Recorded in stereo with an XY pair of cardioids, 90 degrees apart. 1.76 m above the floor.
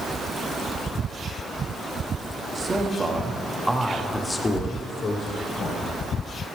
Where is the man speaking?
40° right, 1.6 m; by 5.8 s 70° left, 1.8 m.